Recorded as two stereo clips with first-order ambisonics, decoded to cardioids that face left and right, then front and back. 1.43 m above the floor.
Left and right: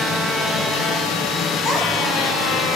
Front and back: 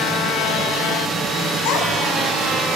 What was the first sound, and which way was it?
A child speaking, 5° right.